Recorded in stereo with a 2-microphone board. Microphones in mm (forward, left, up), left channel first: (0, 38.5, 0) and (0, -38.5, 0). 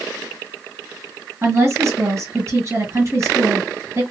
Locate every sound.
1.4 s a woman speaking: 40° right (ahead or behind), 2.0 m